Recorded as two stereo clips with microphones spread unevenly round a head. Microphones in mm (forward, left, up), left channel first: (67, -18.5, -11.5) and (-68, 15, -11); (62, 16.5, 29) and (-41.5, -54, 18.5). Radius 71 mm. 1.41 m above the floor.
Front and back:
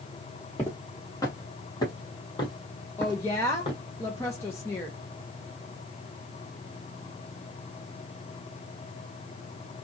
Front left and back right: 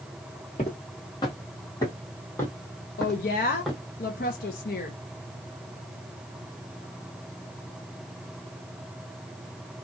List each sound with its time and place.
0.6 s footsteps: 50° left, 1.8 m; by 3.8 s 50° right, 2.0 m
3.0 s a woman speaking: 60° left, 0.7 m